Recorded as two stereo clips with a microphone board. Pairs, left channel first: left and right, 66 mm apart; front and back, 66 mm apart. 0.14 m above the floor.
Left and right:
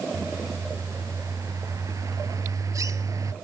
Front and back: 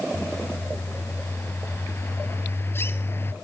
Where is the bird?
55° right, 1.0 m.